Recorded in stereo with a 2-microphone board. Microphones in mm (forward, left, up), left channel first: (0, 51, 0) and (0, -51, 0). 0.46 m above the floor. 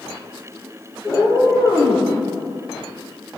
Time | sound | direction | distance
1.0 | a cat meowing | 15° left (ahead or behind) | 3.5 m